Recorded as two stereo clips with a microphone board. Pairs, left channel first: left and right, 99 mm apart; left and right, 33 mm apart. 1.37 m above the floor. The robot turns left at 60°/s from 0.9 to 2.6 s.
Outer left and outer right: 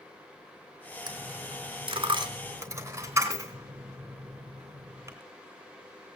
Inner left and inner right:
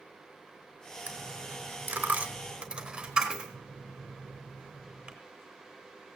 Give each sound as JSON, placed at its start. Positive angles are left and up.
{"t": 1.1, "sound": "a dropped coin", "side_deg": -50, "distance_m": 3.0}